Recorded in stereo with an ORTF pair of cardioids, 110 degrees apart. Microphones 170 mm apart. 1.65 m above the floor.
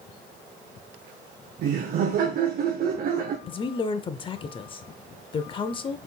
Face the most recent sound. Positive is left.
turn(degrees=30)